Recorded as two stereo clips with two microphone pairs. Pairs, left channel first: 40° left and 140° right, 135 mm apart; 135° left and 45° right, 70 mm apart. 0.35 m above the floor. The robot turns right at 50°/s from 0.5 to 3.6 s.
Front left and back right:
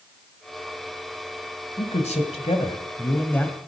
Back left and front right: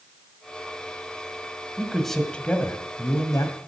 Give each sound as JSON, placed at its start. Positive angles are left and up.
{"t": 1.8, "sound": "a man speaking", "azimuth_deg": 30, "distance_m": 1.8}